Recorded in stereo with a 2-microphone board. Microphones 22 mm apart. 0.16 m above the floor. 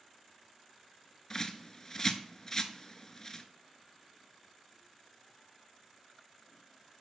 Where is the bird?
25° left (ahead or behind), 0.5 m.